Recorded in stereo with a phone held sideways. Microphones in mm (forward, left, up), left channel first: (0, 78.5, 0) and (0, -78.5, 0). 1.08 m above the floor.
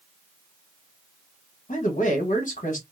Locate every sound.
1.7 s a man speaking: 55° left (ahead or behind), 1.1 m